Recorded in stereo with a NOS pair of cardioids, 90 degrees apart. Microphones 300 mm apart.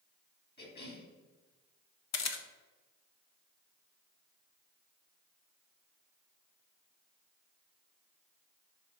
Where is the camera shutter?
60° left, 1.3 m.